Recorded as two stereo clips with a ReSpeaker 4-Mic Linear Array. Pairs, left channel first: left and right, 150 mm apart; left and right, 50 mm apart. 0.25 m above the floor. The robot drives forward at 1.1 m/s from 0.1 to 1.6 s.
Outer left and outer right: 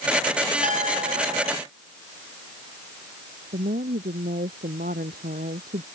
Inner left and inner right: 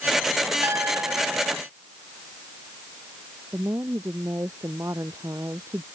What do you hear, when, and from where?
0.6 s a clink: 55° right (ahead or behind); by 1.6 s 50° right (ahead or behind)
3.5 s a woman speaking: 80° right